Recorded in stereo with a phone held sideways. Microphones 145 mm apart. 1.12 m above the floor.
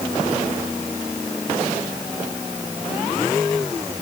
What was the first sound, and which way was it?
Only background noise.